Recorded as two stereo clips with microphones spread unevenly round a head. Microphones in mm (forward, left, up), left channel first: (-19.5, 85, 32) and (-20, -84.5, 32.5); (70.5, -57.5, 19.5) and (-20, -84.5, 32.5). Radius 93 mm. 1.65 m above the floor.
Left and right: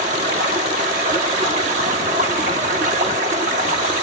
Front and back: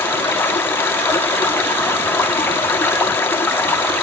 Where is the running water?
50° right, 1.5 m.